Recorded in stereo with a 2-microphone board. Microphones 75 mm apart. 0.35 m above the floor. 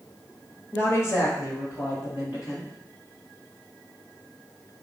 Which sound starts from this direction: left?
A woman speaking, at 0.7 s.